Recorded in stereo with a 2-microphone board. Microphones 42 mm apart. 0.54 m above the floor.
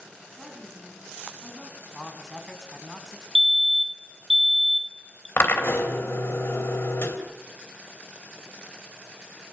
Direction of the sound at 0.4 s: 5° left (ahead or behind).